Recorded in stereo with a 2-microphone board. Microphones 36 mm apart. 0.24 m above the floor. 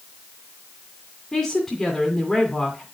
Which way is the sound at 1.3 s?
15° left (ahead or behind).